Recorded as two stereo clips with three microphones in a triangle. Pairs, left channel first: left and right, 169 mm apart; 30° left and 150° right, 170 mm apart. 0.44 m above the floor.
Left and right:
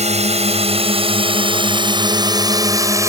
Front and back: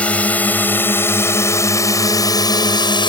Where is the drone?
50° right; by 3.1 s 25° right.